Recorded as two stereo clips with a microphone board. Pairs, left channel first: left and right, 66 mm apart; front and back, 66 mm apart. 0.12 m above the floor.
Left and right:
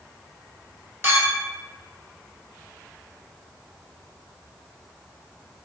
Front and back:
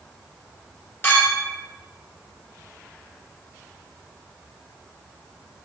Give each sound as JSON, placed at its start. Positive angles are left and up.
{"t": 1.0, "sound": "a clink", "azimuth_deg": -45, "distance_m": 1.5}